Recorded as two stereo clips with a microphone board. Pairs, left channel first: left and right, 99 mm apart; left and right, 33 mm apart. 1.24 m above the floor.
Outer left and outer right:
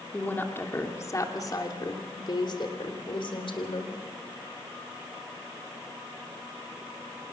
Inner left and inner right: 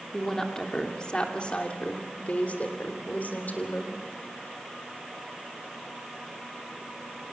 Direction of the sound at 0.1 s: 15° left (ahead or behind).